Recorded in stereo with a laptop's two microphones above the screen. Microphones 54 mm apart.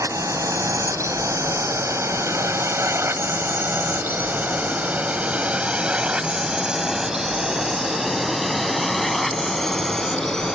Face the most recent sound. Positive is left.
turn(degrees=10)  # may be behind; listen again after turning